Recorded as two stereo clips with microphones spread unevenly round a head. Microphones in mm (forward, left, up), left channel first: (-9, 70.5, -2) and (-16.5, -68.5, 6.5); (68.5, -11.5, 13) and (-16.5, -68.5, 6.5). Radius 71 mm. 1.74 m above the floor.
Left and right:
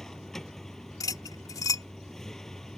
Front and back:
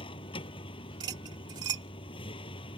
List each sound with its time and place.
0.0 s a vehicle: straight ahead
1.0 s cutlery clinking: 150° left